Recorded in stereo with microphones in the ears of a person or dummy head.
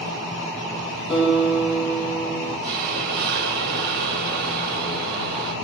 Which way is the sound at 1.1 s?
5° left (ahead or behind).